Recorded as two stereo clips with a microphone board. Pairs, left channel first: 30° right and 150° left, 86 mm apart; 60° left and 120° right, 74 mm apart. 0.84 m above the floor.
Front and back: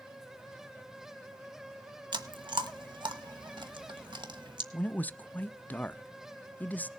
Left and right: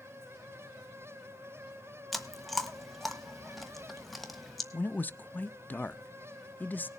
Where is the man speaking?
20° left, 0.5 m.